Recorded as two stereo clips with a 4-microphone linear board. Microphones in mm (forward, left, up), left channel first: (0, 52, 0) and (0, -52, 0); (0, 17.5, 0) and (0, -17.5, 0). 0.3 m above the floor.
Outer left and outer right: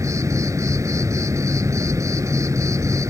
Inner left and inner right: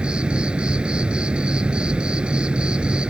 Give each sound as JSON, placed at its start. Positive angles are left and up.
{"t": 0.0, "sound": "an insect", "side_deg": -30}